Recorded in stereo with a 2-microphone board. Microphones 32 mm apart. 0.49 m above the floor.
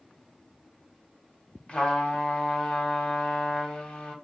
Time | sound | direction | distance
1.7 | a trumpet | 30° left (ahead or behind) | 0.8 m